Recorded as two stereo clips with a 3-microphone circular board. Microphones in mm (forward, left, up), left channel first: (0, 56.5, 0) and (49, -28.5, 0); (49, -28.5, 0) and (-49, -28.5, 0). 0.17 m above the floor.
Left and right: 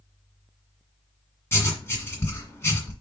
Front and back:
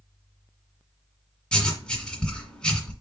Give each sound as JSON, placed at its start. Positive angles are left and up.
{"t": 1.5, "sound": "writing", "azimuth_deg": 75, "distance_m": 1.6}